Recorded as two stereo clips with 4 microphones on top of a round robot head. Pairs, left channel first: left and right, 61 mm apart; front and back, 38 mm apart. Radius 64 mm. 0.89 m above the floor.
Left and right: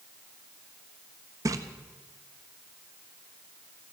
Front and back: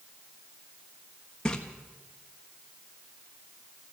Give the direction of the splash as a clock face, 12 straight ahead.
2 o'clock.